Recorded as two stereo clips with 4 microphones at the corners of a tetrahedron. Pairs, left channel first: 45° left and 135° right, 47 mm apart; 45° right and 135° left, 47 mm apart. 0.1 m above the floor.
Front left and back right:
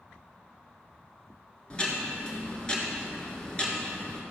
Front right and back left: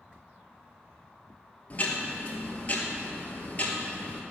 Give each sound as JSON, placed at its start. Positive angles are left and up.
{"t": 1.7, "sound": "ticking", "azimuth_deg": -10, "distance_m": 1.4}